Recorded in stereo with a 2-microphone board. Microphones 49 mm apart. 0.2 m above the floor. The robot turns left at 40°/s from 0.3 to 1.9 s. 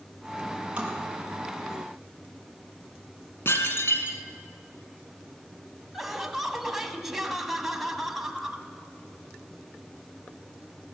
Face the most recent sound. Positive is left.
turn(degrees=-5)  # may be behind; listen again after turning